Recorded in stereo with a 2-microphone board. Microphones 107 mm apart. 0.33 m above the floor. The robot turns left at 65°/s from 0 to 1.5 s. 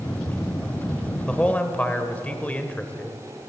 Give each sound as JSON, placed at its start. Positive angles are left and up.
{"t": 1.3, "sound": "a man speaking", "side_deg": 5, "distance_m": 0.9}